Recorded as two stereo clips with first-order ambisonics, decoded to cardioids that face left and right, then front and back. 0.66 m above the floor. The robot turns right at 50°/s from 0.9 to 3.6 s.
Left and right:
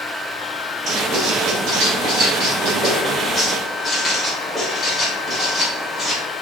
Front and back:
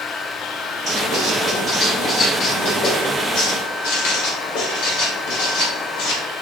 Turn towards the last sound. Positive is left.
turn(degrees=0)